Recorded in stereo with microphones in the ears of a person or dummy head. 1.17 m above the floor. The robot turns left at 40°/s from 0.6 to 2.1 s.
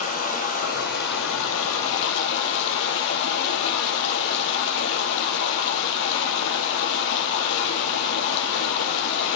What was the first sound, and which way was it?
Running water, 140° left.